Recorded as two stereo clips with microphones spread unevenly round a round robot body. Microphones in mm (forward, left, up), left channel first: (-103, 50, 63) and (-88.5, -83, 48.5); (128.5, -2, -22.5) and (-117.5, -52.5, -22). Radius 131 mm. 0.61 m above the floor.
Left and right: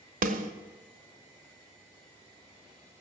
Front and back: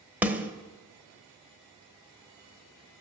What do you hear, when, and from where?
0.2 s a snare drum: 85° right, 0.9 m